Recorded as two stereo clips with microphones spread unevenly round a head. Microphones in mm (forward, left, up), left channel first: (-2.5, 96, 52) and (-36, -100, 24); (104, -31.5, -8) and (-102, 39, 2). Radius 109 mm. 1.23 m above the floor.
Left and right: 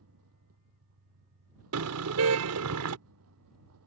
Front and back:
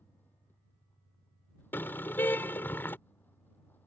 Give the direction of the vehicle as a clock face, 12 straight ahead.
3 o'clock.